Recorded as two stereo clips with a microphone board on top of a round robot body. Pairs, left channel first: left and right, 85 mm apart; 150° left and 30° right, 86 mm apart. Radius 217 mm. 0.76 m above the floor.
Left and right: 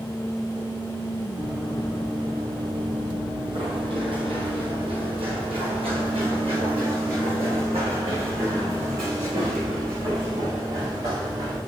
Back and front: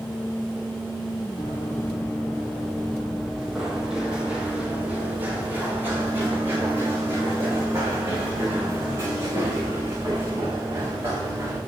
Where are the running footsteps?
145° right, 1.7 m; by 11.6 s 80° right, 6 m.